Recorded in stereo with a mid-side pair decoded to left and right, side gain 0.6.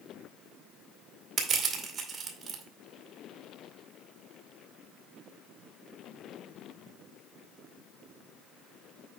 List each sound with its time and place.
1.4 s crushing: 40° right, 2 m